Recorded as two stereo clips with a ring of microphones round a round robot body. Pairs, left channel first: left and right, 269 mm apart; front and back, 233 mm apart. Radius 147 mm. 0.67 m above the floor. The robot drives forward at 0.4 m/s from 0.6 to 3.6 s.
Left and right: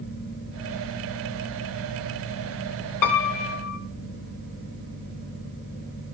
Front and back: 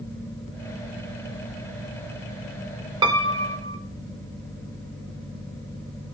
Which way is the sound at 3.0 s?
105° left.